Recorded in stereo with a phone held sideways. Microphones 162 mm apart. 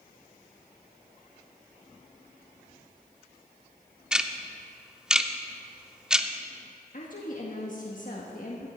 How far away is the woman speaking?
About 1.5 m.